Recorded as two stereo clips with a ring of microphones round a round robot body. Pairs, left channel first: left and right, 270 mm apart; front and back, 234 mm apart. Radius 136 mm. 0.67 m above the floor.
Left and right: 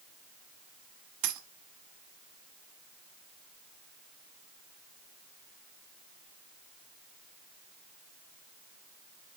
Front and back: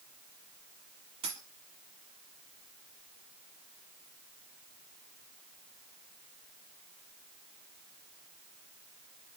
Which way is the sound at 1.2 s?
110° right.